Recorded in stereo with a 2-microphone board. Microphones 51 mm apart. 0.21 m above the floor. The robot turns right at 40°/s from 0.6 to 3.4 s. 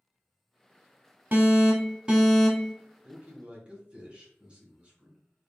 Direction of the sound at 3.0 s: 25° right (ahead or behind).